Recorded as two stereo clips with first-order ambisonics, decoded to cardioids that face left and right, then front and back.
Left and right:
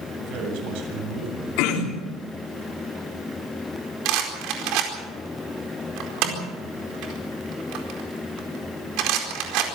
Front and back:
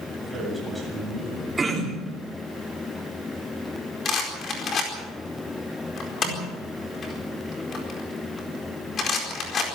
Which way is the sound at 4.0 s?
60° right.